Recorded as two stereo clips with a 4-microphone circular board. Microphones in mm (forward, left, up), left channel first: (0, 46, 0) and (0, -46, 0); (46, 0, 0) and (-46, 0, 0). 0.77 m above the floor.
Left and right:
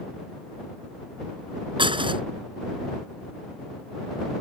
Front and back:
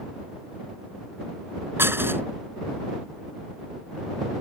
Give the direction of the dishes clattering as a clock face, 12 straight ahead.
4 o'clock.